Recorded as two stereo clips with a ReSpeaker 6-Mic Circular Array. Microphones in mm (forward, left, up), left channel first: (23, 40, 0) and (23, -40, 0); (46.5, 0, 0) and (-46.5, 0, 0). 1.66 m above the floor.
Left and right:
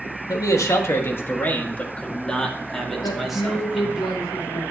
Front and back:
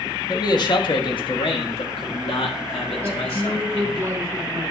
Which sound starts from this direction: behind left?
A woman speaking, at 3.0 s.